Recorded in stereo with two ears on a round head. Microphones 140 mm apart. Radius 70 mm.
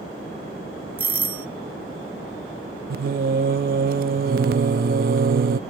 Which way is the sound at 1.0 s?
10° right (ahead or behind).